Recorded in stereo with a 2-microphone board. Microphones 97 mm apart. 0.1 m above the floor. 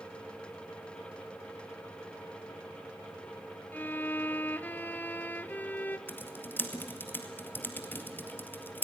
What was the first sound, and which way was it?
A violin, 20° left (ahead or behind).